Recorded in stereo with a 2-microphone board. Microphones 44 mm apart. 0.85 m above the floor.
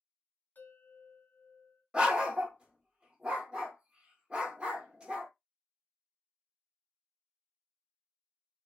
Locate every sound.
0.6 s a bell: 45° left (ahead or behind), 1.4 m
1.9 s a dog barking: 25° right (ahead or behind), 0.9 m